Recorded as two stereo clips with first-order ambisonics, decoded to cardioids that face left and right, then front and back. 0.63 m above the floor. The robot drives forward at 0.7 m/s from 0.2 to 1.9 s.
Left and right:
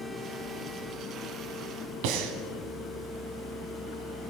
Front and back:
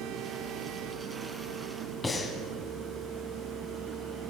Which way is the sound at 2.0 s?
75° right.